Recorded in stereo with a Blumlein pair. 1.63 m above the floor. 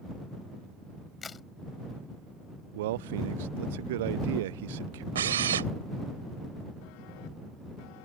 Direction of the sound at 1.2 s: 20° left.